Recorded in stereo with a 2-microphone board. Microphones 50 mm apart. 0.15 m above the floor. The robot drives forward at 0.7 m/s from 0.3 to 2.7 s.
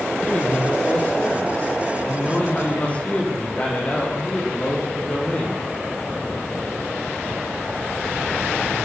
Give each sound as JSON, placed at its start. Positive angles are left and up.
{"t": 0.2, "sound": "a man speaking", "side_deg": 30, "distance_m": 5.5}